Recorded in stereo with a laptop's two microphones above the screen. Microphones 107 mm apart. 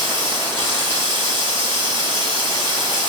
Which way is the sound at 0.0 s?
45° right (ahead or behind).